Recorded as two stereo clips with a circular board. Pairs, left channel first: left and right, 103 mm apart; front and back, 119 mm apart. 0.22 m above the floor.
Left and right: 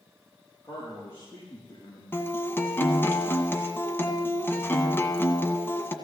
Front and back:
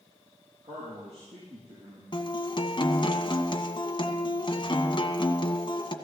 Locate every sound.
0.6 s a man speaking: 155° left, 7.5 m
2.1 s a guitar: 30° left, 1.6 m